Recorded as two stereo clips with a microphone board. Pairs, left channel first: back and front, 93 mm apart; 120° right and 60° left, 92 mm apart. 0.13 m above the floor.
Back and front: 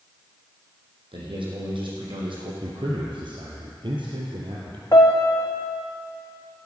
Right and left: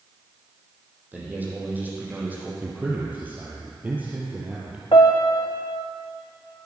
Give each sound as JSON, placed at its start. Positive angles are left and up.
{"t": 1.1, "sound": "a man speaking", "azimuth_deg": -10, "distance_m": 5.0}
{"t": 2.6, "sound": "a man speaking", "azimuth_deg": -10, "distance_m": 3.0}
{"t": 4.9, "sound": "a piano", "azimuth_deg": -135, "distance_m": 2.0}